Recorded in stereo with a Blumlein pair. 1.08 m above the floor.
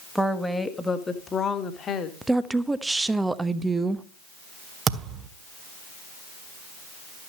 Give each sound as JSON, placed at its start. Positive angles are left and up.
{"t": 0.1, "sound": "a woman speaking", "azimuth_deg": 0, "distance_m": 1.7}
{"t": 2.2, "sound": "a woman speaking", "azimuth_deg": -5, "distance_m": 1.0}
{"t": 4.9, "sound": "a thud", "azimuth_deg": -25, "distance_m": 1.4}